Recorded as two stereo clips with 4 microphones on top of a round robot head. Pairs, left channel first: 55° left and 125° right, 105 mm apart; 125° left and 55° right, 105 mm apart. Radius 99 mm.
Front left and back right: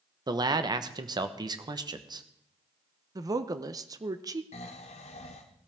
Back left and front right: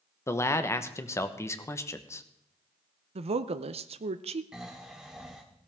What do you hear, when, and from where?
0.3 s a man speaking: 170° right, 1.1 m
3.1 s a woman speaking: 70° right, 0.6 m
4.5 s snoring: 30° left, 1.1 m